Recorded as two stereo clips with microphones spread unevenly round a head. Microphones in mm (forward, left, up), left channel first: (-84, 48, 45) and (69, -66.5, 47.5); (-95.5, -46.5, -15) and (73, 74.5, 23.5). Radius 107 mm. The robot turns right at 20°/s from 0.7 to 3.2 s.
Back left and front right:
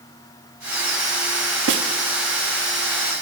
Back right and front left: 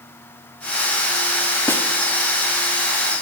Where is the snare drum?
65° right, 1.1 m; by 1.9 s 60° right, 1.1 m.